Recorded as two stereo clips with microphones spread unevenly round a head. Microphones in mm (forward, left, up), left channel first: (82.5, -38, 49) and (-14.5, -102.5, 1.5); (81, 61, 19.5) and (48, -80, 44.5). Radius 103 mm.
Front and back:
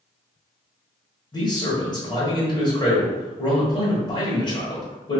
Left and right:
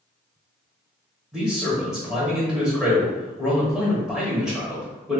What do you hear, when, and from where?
1.3 s a man speaking: 15° right, 1.4 m